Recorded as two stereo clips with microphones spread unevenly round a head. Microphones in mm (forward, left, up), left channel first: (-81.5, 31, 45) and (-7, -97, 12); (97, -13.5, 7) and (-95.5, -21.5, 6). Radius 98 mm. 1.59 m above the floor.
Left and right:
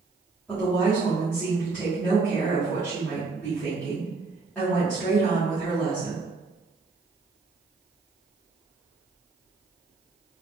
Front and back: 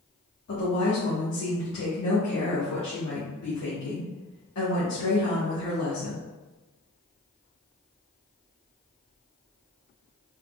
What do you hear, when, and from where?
0.5 s a woman speaking: 35° left, 1.8 m